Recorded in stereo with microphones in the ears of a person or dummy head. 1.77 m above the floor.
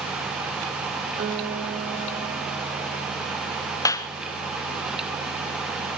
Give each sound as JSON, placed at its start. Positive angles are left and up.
{"t": 1.2, "sound": "a guitar", "side_deg": -50, "distance_m": 4.5}
{"t": 3.9, "sound": "a clap", "side_deg": 15, "distance_m": 1.0}